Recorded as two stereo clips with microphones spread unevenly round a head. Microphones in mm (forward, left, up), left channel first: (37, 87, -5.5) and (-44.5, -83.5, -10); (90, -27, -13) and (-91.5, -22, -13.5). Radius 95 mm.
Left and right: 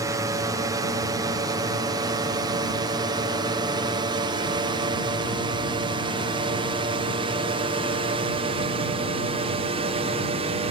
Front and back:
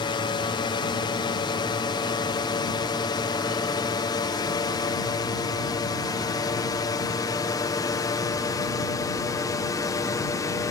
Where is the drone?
50° right; by 10.7 s 65° right.